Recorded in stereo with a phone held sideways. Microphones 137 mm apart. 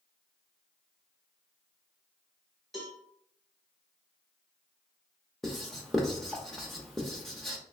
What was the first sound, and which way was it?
A cowbell, centre (ahead or behind).